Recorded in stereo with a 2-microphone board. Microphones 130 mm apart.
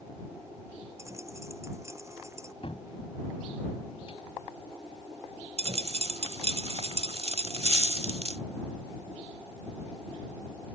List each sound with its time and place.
1.0 s a dropped coin: 20° right (ahead or behind)
2.6 s a cupboard door: 50° left (ahead or behind)
5.6 s a dropped coin: 55° right (ahead or behind)